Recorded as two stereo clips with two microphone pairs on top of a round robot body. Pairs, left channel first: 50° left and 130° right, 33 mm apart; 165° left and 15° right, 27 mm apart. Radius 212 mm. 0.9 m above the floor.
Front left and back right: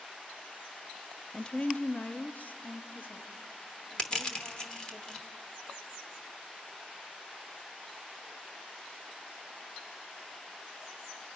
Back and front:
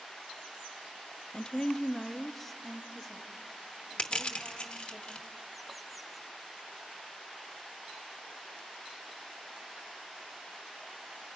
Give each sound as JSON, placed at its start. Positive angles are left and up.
{"t": 1.3, "sound": "a woman speaking", "azimuth_deg": 120, "distance_m": 0.6}
{"t": 4.0, "sound": "crushing", "azimuth_deg": 115, "distance_m": 0.9}